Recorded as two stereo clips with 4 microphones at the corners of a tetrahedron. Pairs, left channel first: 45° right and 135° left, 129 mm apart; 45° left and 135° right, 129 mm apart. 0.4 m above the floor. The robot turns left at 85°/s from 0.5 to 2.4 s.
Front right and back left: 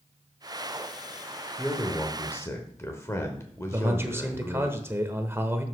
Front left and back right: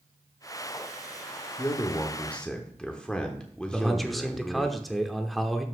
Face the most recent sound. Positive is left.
turn(degrees=135)